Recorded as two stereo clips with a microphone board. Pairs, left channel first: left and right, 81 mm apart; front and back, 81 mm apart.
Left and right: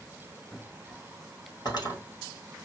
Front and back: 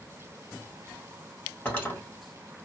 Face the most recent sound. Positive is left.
turn(degrees=65)